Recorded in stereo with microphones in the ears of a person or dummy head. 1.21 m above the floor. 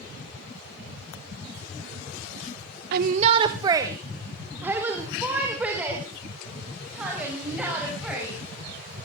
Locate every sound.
2.9 s a shout: 60° right (ahead or behind), 0.7 m; by 8.3 s 10° right (ahead or behind), 7.5 m